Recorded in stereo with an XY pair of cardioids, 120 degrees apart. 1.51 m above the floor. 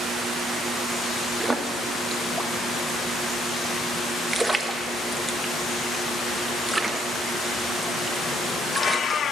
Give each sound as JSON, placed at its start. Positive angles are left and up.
{"t": 1.4, "sound": "a splash", "azimuth_deg": -10, "distance_m": 1.0}